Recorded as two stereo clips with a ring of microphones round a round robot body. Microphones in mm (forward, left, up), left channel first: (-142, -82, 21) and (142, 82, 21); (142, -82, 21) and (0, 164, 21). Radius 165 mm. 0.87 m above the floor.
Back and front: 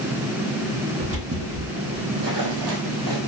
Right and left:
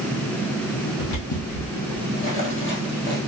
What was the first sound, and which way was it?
Footsteps, 40° right.